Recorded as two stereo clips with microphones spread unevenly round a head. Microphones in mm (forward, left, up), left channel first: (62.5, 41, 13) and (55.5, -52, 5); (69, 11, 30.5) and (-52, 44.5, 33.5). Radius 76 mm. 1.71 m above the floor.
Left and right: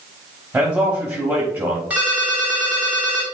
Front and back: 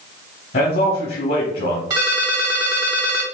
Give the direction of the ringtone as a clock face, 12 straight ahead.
6 o'clock.